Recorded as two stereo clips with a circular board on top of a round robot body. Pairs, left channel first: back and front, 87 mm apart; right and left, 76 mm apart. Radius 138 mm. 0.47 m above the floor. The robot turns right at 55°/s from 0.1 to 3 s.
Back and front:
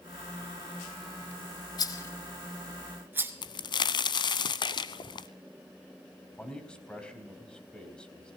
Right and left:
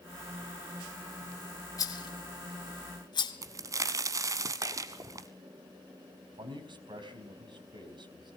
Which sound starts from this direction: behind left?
A crack, at 3.4 s.